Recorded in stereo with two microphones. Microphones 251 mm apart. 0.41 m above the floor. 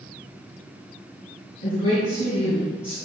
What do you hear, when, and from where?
1.6 s a woman speaking: 75° left (ahead or behind), 3 m